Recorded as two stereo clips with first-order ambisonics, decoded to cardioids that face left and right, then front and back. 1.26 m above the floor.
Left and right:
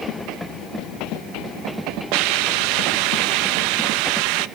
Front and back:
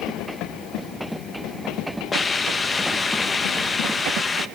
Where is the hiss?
75° right, 1.1 m.